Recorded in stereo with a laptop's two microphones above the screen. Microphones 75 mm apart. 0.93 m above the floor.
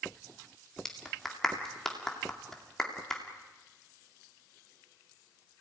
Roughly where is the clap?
Centre.